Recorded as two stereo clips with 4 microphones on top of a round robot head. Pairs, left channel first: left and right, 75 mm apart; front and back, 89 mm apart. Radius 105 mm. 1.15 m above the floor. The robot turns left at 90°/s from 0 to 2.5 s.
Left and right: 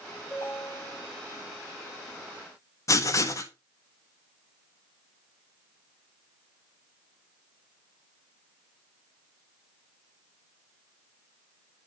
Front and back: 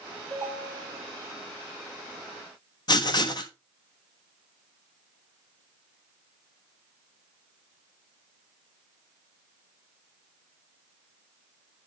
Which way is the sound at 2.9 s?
45° left.